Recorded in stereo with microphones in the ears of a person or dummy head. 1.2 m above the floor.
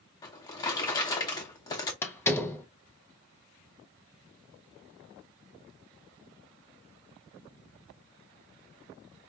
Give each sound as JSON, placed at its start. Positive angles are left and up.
{"t": 0.2, "sound": "a drawer", "side_deg": 20, "distance_m": 0.8}
{"t": 2.0, "sound": "a door slam", "side_deg": 10, "distance_m": 0.6}